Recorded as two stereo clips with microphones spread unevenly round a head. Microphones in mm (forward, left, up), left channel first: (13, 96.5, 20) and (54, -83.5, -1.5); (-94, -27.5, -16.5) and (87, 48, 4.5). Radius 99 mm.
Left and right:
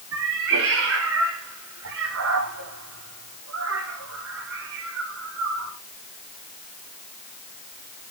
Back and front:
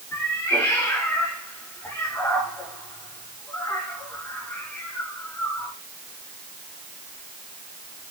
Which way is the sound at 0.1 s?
80° right.